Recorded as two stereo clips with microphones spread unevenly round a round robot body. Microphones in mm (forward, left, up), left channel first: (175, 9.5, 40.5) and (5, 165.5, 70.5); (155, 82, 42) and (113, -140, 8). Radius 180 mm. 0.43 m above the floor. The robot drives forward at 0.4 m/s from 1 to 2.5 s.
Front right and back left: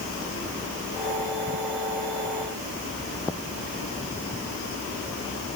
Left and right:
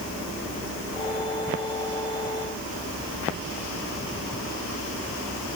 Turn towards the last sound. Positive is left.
No sound to turn to.